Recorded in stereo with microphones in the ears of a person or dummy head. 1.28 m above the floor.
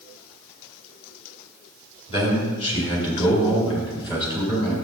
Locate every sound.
2.1 s a man speaking: 30° left (ahead or behind), 3.5 m; by 4.8 s 25° left (ahead or behind), 6 m